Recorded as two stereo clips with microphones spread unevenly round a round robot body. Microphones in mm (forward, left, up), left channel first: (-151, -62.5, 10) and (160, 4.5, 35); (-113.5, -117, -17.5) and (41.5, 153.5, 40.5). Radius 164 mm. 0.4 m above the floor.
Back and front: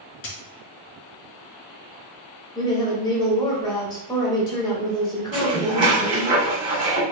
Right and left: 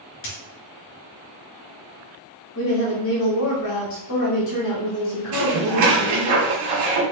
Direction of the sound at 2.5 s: 95° right.